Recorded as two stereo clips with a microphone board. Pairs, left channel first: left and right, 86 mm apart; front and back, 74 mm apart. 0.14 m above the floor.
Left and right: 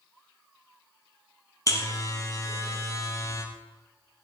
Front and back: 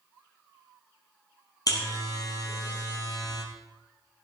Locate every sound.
1.7 s a buzzer: 35° left, 2.5 m